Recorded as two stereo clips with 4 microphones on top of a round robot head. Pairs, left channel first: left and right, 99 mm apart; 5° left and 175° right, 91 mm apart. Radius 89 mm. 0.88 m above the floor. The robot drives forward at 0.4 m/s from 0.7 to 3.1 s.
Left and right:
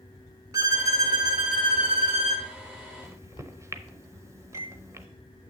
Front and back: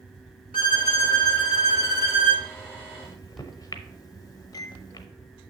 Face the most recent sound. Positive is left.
turn(degrees=-35)